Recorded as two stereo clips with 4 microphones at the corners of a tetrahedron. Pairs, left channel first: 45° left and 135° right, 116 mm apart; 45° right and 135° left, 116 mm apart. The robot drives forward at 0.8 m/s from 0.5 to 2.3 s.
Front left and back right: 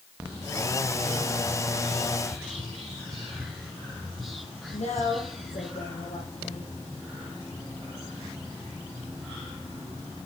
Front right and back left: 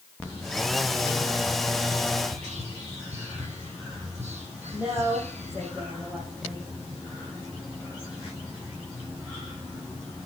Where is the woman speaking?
60° left, 6 m.